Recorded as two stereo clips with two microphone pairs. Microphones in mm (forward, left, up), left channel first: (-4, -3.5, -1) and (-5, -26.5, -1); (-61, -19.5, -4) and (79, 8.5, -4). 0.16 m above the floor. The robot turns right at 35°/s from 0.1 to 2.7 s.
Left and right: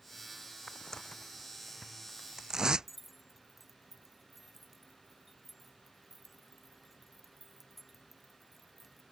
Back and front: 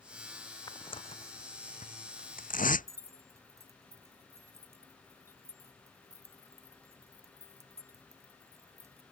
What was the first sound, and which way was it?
Tearing paper, 130° left.